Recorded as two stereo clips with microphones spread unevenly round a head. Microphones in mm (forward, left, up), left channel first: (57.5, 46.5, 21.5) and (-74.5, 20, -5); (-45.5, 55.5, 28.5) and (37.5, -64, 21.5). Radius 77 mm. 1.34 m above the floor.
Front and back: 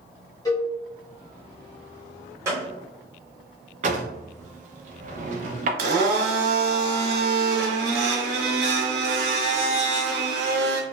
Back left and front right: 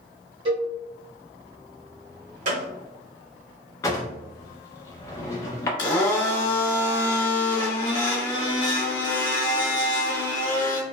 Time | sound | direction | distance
0.5 | a cowbell | 15° right | 1.0 m
2.5 | a gunshot | 95° right | 0.7 m
3.8 | a drawer | straight behind | 0.5 m
5.8 | a blender | 170° right | 1.1 m